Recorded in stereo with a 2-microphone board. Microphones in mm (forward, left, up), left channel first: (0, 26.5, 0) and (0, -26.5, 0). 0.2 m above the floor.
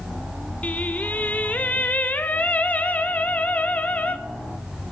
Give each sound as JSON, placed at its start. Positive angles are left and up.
{"t": 0.6, "sound": "singing", "side_deg": 30, "distance_m": 0.6}